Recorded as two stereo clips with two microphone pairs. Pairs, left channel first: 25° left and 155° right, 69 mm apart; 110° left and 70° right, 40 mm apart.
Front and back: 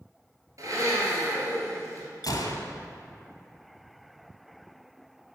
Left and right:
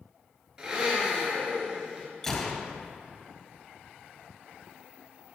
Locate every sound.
0.6 s a blender: 145° right, 2.5 m
2.2 s a gunshot: 30° left, 1.0 m